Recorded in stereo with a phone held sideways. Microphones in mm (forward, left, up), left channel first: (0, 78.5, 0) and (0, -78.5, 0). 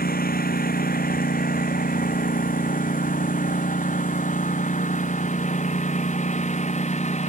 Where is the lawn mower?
70° left (ahead or behind); by 7.3 s 45° left (ahead or behind).